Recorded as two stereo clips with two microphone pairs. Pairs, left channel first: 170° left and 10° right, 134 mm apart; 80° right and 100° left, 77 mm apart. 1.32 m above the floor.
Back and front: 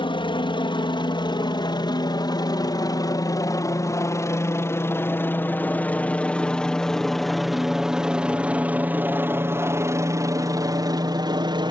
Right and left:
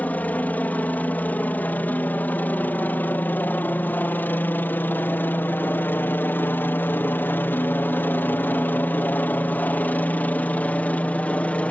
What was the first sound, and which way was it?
A helicopter, 145° right.